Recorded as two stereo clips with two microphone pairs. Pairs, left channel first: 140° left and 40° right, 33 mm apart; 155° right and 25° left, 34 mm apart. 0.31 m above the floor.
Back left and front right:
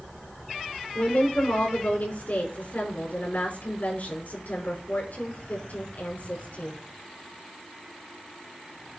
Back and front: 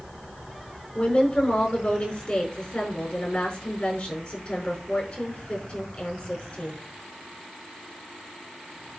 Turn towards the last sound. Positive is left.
turn(degrees=150)